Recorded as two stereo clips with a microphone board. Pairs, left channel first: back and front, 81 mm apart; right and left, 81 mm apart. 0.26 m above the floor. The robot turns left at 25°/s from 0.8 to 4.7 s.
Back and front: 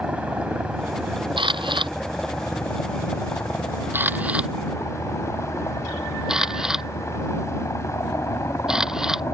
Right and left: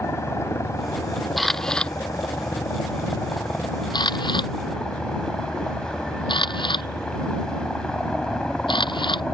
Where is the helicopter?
65° right; by 9.3 s 165° right.